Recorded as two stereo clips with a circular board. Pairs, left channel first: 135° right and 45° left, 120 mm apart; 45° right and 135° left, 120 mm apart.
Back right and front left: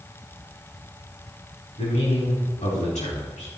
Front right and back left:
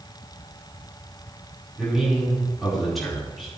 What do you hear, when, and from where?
1.8 s a man speaking: 135° right, 4.5 m